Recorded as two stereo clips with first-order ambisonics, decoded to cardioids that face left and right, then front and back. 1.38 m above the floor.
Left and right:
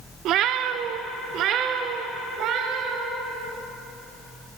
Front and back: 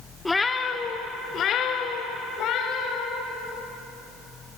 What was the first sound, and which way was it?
A cat meowing, 85° right.